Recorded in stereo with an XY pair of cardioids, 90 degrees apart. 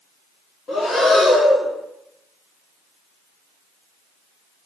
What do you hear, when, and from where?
0.7 s breathing: 45° left, 2 m